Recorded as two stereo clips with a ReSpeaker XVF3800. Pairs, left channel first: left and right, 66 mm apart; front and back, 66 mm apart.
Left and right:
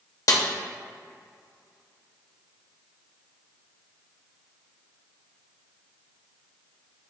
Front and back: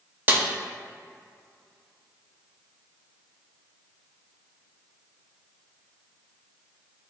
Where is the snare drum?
120° left, 0.6 m.